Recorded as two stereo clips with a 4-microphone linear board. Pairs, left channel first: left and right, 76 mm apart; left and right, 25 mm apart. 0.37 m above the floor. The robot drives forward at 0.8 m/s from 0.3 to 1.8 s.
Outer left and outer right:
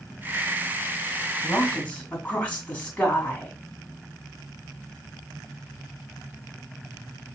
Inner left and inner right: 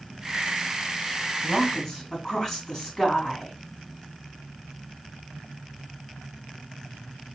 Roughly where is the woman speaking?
Centre.